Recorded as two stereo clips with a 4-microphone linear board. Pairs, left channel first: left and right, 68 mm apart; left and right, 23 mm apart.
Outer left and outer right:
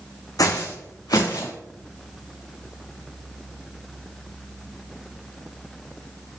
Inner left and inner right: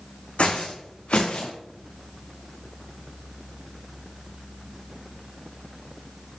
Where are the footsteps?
65° left (ahead or behind), 1.3 m; by 1.5 s 80° left, 2.5 m.